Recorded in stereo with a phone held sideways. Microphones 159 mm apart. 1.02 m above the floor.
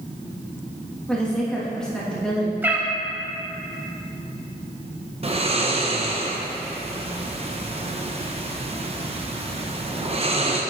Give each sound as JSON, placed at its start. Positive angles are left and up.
{"t": 1.1, "sound": "a woman speaking", "side_deg": 5, "distance_m": 1.4}
{"t": 2.6, "sound": "a cat meowing", "side_deg": -15, "distance_m": 0.9}
{"t": 5.2, "sound": "snoring", "side_deg": -35, "distance_m": 0.7}